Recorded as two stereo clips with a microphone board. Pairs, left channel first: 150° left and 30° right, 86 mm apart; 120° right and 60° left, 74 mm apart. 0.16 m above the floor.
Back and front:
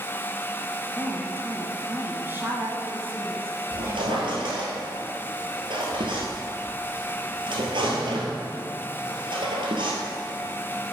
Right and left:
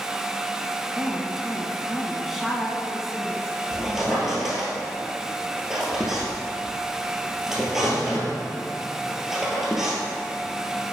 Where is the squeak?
25° right, 1.7 m.